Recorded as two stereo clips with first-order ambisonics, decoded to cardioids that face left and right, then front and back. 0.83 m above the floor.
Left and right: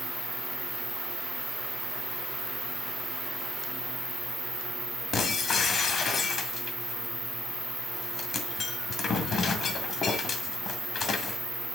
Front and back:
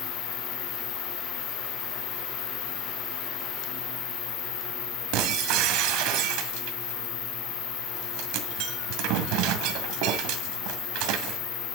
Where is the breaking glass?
155° left, 1.8 m.